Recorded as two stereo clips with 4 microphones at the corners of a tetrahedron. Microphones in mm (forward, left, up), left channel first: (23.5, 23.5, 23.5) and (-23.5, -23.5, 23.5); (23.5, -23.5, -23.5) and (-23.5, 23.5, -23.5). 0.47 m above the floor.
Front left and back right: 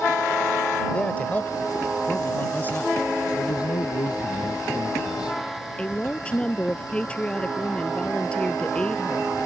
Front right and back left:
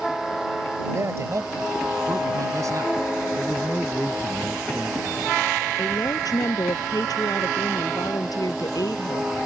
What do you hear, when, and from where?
0.9 s a man speaking: 110° left; by 3.0 s 105° left
3.4 s a man speaking: 40° left
5.8 s a woman speaking: 30° right